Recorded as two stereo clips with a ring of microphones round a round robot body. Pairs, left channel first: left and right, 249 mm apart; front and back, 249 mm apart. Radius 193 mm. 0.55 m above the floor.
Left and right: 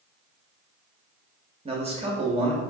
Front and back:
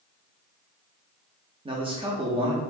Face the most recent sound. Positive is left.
turn(degrees=-130)